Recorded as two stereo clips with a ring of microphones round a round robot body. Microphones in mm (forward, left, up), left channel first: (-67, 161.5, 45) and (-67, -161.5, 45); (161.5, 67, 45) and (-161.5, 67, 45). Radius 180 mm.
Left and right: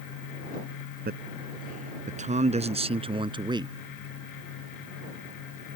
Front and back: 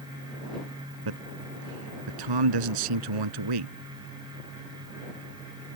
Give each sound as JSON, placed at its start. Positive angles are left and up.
{"t": 1.1, "sound": "a man speaking", "azimuth_deg": -150}